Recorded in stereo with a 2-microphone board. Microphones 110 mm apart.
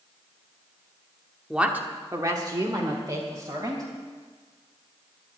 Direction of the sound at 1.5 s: 5° right (ahead or behind).